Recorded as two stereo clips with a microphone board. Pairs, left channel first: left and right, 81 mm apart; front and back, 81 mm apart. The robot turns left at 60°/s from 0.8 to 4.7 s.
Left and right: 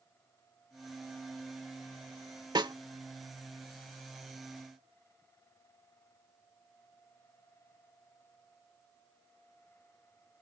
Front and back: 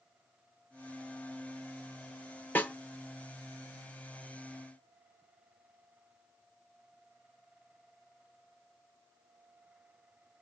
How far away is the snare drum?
About 0.8 m.